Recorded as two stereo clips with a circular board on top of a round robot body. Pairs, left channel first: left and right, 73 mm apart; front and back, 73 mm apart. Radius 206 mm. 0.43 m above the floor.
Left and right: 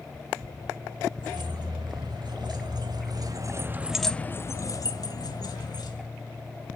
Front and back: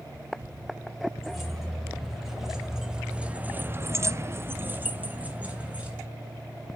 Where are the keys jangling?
90° right, 2.5 m; by 6.0 s 105° left, 2 m.